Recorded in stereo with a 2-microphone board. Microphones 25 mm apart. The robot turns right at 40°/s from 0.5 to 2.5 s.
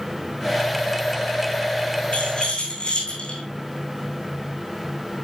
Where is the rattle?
60° left (ahead or behind), 5 m; by 3.4 s 45° left (ahead or behind), 5 m.